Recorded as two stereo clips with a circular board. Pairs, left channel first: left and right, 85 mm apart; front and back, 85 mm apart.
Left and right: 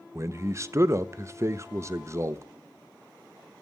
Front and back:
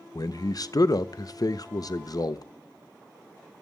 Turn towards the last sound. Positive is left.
turn(degrees=-35)